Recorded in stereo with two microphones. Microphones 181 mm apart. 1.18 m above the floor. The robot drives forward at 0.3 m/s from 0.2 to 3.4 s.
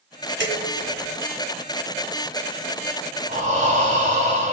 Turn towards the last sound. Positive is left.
turn(degrees=-40)  # may be behind; listen again after turning